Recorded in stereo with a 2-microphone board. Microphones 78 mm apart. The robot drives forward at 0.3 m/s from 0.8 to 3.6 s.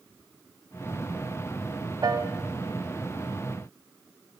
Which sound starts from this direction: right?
A piano, at 2.0 s.